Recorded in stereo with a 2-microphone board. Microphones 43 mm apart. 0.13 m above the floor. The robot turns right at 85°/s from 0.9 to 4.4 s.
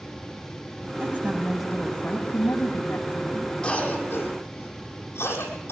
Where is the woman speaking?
60° right, 7 m; by 3.6 s 160° left, 7 m.